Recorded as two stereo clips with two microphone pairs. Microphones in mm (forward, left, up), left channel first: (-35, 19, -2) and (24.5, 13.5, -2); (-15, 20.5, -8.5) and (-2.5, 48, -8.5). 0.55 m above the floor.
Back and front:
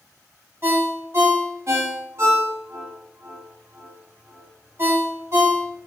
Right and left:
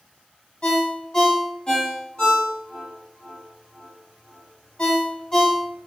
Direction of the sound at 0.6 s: 55° right.